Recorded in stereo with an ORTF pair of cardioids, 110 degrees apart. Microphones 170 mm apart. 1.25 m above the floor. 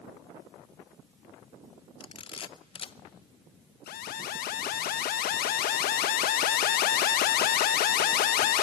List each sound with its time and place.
2.0 s a camera shutter: 30° left, 0.7 m
3.9 s an alarm: 65° left, 1.0 m